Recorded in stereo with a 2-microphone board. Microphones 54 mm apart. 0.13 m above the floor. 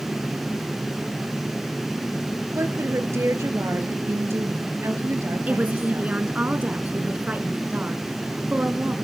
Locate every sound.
2.5 s a woman speaking: 55° right (ahead or behind), 2.5 m
5.5 s a woman speaking: 30° right (ahead or behind), 1.7 m